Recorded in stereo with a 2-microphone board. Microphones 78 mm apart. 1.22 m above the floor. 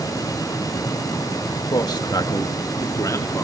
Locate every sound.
1.7 s a man speaking: 65° left (ahead or behind), 1.6 m; by 3.4 s 45° left (ahead or behind), 3 m